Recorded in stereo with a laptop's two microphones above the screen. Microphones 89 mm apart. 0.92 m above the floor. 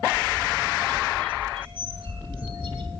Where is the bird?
70° right (ahead or behind), 2.5 m.